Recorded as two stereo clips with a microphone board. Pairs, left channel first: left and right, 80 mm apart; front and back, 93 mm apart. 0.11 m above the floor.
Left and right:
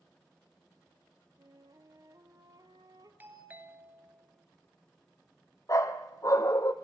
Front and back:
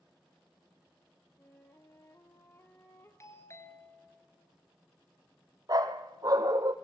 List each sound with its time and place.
1.4 s a flute: 60° right, 1.5 m
3.2 s a doorbell: 35° right, 2 m
5.7 s a dog barking: 135° left, 1.0 m